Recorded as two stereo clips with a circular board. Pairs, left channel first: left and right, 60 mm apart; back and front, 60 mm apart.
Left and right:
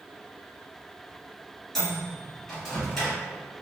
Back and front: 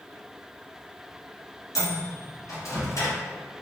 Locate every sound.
1.8 s a microwave: 170° left, 1.7 m